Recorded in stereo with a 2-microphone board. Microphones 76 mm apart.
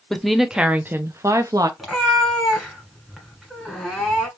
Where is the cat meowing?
5° right (ahead or behind), 1.4 m.